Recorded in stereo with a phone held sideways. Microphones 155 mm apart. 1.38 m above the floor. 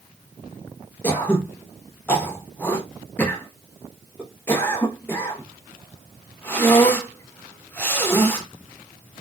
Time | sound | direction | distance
1.0 | throat clearing | 10° left (ahead or behind) | 0.8 m